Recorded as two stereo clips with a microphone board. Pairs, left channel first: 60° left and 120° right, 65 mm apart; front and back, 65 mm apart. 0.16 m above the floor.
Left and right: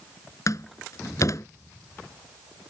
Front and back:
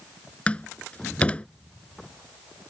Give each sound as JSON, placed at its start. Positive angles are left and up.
{"t": 0.5, "sound": "a door slam", "azimuth_deg": 65}